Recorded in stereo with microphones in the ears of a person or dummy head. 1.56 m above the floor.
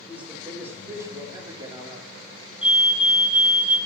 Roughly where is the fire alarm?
Centre.